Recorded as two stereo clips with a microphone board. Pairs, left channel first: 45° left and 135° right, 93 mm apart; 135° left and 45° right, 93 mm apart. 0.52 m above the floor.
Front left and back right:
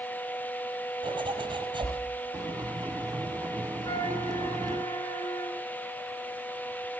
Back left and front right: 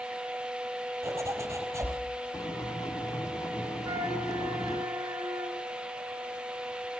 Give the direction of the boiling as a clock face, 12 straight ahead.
6 o'clock.